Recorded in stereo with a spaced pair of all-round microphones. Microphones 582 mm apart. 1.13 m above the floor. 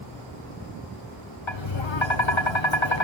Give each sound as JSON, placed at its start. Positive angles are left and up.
{"t": 1.5, "sound": "tapping", "side_deg": 55, "distance_m": 1.3}